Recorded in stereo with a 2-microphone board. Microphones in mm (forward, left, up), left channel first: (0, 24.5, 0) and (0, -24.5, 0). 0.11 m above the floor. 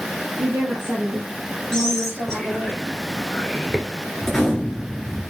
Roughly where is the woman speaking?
Right.